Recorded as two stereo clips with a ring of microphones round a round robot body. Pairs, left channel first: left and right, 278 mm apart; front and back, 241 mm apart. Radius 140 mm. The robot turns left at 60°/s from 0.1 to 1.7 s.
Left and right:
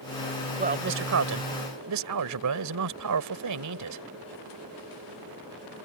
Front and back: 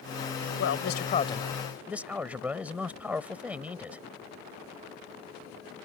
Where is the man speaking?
30° right; by 4.0 s 95° right.